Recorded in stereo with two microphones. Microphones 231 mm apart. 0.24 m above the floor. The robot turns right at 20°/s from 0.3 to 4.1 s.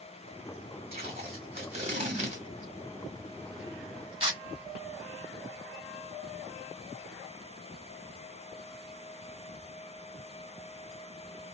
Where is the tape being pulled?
25° right (ahead or behind), 1.6 m; by 4.4 s 20° right (ahead or behind), 1.6 m.